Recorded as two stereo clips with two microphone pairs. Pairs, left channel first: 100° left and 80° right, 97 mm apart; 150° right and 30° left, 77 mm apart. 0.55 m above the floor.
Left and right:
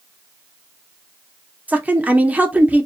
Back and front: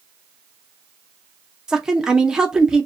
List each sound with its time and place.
1.7 s a woman speaking: 40° right, 0.6 m